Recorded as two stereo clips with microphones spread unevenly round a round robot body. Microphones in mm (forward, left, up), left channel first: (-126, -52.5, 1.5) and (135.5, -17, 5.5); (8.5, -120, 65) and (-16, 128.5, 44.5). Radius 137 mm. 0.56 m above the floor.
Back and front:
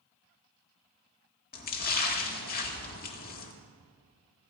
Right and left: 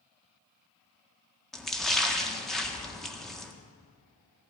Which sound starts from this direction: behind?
A splash, at 1.5 s.